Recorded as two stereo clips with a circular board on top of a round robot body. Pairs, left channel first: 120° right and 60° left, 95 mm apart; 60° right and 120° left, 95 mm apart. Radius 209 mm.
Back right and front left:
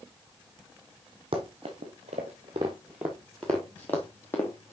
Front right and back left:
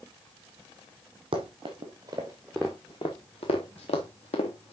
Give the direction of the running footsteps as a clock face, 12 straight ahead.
9 o'clock.